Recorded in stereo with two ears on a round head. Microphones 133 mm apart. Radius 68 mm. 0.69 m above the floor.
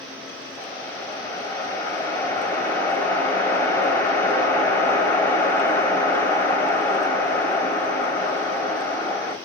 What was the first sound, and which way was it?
A whoosh, 20° left (ahead or behind).